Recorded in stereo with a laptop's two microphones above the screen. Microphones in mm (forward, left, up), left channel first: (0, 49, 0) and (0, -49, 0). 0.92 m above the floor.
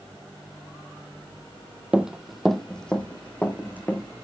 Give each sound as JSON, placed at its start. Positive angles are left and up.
{"t": 1.9, "sound": "running footsteps", "side_deg": -15, "distance_m": 1.1}